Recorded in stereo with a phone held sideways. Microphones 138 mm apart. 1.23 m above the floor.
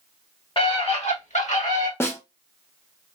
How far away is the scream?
About 1.3 m.